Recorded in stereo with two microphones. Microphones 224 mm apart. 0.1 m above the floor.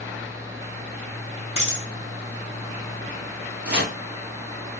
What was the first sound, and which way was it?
A dropped coin, 65° right (ahead or behind).